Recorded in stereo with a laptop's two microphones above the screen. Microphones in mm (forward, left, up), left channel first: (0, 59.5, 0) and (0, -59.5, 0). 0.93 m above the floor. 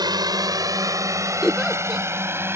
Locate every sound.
0.0 s a drone: 35° right (ahead or behind); by 2.5 s 20° right (ahead or behind)
1.4 s a giggle: centre (ahead or behind)